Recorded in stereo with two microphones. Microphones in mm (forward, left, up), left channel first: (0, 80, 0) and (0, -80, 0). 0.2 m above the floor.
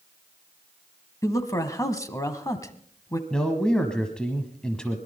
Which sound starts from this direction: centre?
A man speaking, at 3.3 s.